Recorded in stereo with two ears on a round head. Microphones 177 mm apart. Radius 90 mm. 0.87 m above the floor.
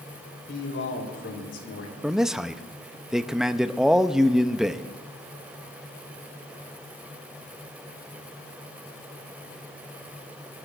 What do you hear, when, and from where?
0.5 s a man speaking: 60° left (ahead or behind), 3.5 m
2.0 s a man speaking: centre (ahead or behind), 0.6 m